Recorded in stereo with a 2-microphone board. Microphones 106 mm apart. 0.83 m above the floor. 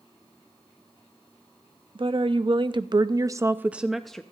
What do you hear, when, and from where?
1.9 s a woman speaking: 55° right (ahead or behind), 0.9 m; by 4.2 s 5° left (ahead or behind), 0.6 m